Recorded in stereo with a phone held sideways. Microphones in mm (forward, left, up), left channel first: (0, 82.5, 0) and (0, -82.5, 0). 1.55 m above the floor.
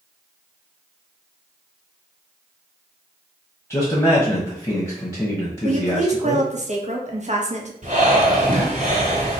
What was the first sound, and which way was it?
A man speaking, 15° left (ahead or behind).